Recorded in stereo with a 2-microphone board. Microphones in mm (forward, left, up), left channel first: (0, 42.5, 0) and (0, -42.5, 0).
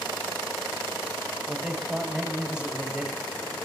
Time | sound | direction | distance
1.5 | a man speaking | 10° right (ahead or behind) | 1.5 m